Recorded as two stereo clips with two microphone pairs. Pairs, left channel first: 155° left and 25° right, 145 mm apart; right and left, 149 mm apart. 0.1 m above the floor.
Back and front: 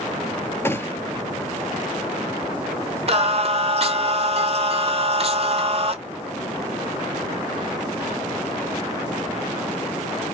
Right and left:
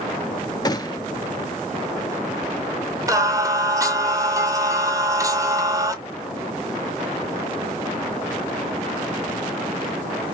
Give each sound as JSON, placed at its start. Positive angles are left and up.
{"t": 0.7, "sound": "a gunshot", "azimuth_deg": -135, "distance_m": 0.6}
{"t": 3.1, "sound": "singing", "azimuth_deg": 20, "distance_m": 0.6}